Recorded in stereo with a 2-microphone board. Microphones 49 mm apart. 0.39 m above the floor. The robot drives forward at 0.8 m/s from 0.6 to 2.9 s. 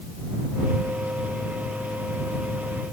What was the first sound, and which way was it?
Only background noise.